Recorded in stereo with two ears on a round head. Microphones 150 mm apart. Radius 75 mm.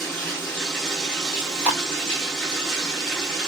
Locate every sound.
0.0 s running water: centre (ahead or behind), 1.1 m
1.3 s chewing: 10° right (ahead or behind), 1.4 m